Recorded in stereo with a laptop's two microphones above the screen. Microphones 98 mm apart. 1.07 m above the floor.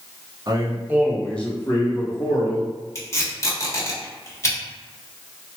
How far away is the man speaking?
About 0.8 m.